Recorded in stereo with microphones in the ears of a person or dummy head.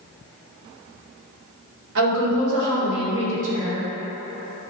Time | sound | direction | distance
1.9 | a woman speaking | 70° right (ahead or behind) | 1.6 m